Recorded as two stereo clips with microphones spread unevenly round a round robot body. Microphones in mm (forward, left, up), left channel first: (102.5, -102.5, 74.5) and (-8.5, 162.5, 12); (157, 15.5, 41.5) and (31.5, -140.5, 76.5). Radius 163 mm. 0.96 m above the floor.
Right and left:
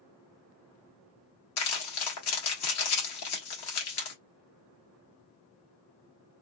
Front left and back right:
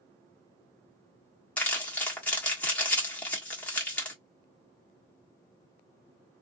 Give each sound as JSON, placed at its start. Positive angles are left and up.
{"t": 1.6, "sound": "crumpling", "azimuth_deg": -35, "distance_m": 1.4}